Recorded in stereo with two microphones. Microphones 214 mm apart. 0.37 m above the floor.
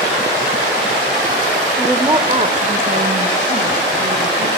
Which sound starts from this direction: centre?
A woman speaking, at 1.8 s.